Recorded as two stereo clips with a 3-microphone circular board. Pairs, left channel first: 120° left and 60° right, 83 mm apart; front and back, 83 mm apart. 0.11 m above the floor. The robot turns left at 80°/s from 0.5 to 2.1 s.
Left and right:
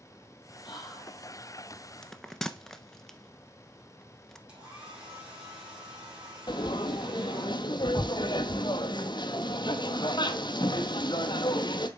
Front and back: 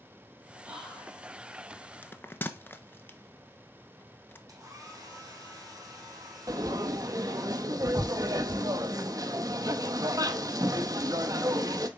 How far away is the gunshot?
No gunshot in this recording.